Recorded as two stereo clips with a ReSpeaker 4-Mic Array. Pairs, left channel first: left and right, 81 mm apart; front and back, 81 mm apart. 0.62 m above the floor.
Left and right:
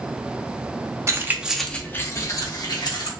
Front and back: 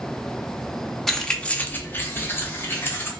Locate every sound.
1.1 s keys jangling: 85° right, 0.5 m; by 3.1 s 60° left, 1.1 m